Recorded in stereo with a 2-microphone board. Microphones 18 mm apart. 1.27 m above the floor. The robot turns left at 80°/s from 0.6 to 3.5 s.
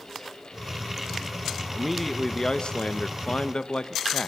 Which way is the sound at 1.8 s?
165° right.